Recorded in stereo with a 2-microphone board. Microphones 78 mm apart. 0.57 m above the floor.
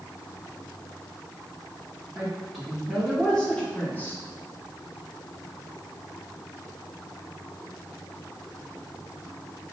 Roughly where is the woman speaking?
Centre.